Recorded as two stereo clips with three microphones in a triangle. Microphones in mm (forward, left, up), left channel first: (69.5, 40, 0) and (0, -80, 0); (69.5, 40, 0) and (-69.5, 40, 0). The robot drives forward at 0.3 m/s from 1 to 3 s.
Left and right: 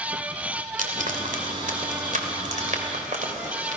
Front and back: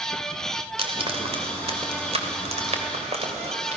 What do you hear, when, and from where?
0.8 s frying: 135° right, 2.5 m; by 3.8 s 145° right, 3 m